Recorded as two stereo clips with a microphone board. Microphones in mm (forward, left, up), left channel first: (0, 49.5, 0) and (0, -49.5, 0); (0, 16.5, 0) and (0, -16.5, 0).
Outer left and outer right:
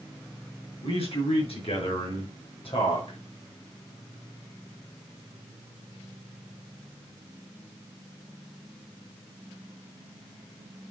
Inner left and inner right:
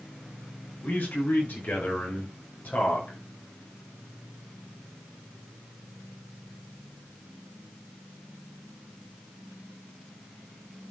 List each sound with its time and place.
0.8 s a man speaking: 75° left (ahead or behind), 7 m